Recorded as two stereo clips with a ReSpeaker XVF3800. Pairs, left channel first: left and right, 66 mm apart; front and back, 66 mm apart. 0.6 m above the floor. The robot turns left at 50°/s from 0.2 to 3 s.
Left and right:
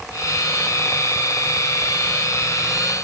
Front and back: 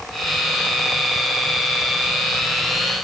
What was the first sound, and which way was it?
Only background noise.